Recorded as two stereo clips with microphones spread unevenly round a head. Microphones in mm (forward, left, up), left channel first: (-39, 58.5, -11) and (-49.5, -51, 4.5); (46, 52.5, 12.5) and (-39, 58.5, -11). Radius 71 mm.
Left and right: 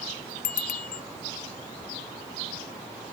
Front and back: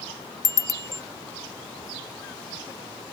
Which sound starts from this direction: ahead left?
A bicycle bell, at 0.4 s.